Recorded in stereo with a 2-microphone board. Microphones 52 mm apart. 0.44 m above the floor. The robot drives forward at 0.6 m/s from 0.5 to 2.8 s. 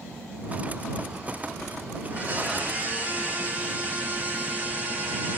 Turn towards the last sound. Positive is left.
turn(degrees=-30)  # may be behind; listen again after turning